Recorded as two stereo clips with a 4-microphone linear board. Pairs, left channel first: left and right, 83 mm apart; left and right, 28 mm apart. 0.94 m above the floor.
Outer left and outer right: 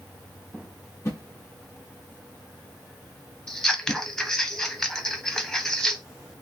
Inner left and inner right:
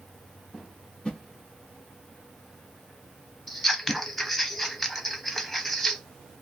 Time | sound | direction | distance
1.1 | a whoosh | 35° left (ahead or behind) | 0.9 m
3.5 | scissors | 5° left (ahead or behind) | 0.6 m